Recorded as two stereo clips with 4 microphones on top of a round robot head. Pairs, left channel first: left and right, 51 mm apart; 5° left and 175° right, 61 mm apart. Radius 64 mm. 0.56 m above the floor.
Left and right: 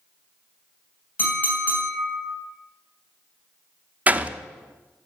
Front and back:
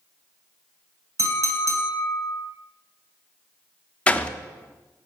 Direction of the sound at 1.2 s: 150° left.